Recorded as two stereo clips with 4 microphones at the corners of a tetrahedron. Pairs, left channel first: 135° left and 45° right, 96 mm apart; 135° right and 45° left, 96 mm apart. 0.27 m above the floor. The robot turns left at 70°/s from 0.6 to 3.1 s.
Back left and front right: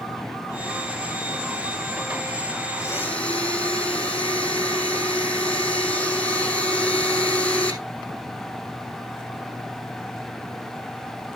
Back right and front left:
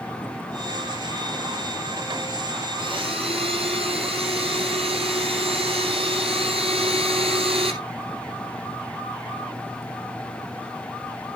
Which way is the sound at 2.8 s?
80° left.